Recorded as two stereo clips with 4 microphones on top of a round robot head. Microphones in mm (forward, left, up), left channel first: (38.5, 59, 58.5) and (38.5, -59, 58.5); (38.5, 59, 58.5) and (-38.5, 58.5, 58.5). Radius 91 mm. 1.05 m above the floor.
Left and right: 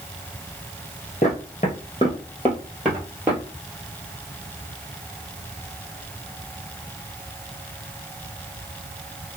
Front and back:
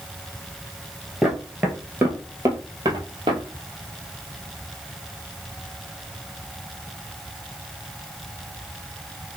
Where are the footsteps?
100° left, 1.3 m; by 3.4 s 165° right, 1.4 m.